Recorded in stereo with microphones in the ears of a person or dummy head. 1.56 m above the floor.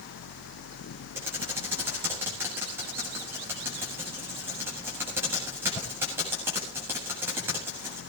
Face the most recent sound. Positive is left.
turn(degrees=-10)  # may be behind; listen again after turning